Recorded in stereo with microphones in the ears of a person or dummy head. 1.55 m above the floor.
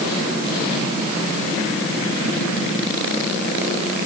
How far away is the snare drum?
No snare drum in this recording.